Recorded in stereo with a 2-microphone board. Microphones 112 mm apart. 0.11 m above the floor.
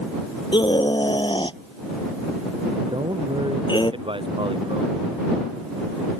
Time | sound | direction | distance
0.5 | a scream | 45° left (ahead or behind) | ?
2.9 | a man speaking | 50° right (ahead or behind) | ?